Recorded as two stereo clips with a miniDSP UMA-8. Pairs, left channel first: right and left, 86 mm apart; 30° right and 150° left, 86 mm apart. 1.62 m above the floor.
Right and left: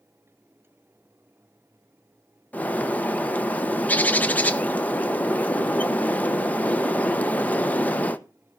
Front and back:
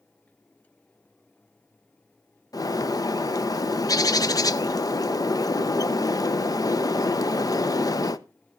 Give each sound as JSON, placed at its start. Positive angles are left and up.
{"t": 2.5, "sound": "a bird", "azimuth_deg": -25, "distance_m": 0.8}